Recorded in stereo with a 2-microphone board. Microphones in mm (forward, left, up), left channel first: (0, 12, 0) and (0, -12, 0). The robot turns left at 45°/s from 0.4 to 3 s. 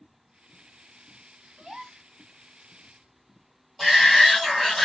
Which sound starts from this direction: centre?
A shout, at 3.8 s.